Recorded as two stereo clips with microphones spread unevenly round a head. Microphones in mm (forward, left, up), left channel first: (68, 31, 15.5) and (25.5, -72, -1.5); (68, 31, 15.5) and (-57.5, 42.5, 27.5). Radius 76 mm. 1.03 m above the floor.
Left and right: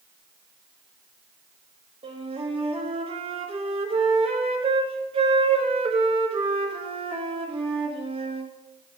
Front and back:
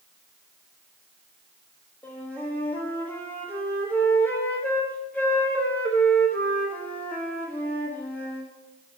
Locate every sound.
2.0 s a flute: 85° right, 1.3 m